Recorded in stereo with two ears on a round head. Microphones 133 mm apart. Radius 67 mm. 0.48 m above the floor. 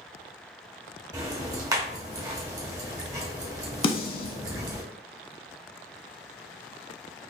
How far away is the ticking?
About 0.9 m.